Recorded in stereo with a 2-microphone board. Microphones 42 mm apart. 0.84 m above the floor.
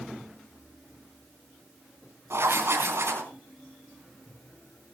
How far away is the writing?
About 3.5 m.